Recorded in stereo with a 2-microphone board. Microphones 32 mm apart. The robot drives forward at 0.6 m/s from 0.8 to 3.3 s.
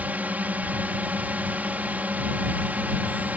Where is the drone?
55° right (ahead or behind).